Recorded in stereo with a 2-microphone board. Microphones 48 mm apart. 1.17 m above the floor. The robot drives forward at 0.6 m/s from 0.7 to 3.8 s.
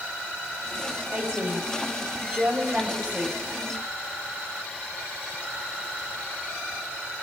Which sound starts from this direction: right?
A woman speaking, at 1.1 s.